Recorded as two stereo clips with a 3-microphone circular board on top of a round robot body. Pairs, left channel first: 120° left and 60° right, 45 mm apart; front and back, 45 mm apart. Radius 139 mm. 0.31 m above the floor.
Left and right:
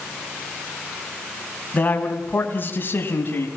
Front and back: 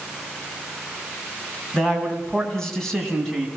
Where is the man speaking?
65° left, 4 m; by 3.5 s 85° left, 4.5 m.